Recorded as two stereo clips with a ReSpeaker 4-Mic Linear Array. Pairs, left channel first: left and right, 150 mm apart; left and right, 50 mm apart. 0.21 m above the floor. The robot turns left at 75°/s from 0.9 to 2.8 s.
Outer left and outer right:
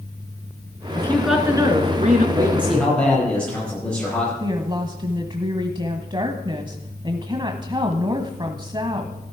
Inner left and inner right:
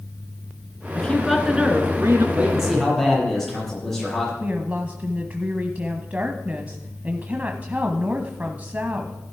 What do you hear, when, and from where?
0.9 s a woman speaking: 25° left, 2.5 m; by 2.2 s 75° right, 2.5 m
2.4 s a man speaking: 155° right, 7.5 m; by 4.3 s 175° left, 7.5 m
4.4 s a woman speaking: 30° right (ahead or behind), 1.0 m